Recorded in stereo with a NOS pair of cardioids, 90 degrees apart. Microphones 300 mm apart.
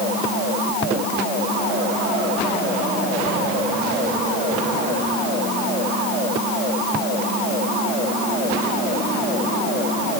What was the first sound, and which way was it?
Only background noise.